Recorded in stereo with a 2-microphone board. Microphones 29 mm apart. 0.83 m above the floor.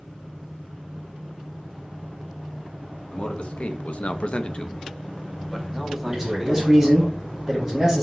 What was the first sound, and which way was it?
A man speaking, 40° left (ahead or behind).